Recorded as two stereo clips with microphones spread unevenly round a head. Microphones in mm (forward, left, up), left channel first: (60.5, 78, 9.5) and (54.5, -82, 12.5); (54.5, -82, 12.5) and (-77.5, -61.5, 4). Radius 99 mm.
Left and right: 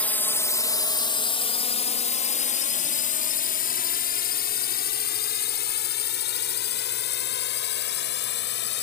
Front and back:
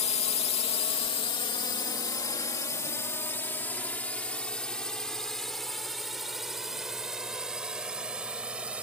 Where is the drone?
10° left; by 8.8 s 85° left.